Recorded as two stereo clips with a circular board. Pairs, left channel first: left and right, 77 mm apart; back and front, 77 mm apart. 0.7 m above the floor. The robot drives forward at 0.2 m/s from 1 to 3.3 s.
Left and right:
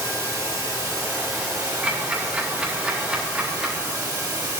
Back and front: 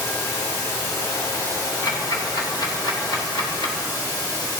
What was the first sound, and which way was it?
Running water, 135° right.